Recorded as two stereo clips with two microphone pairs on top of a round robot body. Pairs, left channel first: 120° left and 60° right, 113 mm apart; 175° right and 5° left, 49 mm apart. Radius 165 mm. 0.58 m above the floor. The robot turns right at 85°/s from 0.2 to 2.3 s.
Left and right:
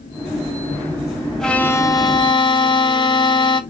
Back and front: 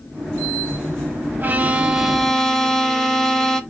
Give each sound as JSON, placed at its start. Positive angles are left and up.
{"t": 1.4, "sound": "a violin", "azimuth_deg": 40, "distance_m": 0.8}